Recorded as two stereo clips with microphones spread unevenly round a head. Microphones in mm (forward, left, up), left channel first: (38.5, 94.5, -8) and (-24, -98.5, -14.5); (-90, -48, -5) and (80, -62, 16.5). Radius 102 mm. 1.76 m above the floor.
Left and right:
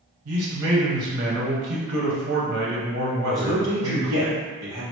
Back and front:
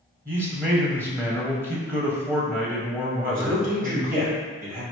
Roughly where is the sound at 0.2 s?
Right.